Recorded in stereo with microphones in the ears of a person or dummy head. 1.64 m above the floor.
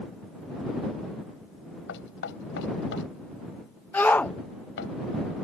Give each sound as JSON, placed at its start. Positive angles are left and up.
{"t": 1.9, "sound": "knocking", "side_deg": 65}
{"t": 3.9, "sound": "a shout", "side_deg": 10}